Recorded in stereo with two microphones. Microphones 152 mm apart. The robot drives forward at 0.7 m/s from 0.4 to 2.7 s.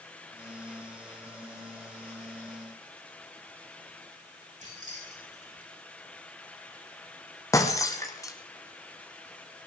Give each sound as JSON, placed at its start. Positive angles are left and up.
{"t": 4.6, "sound": "keys jangling", "side_deg": -55, "distance_m": 7.5}
{"t": 7.5, "sound": "breaking glass", "side_deg": 20, "distance_m": 1.8}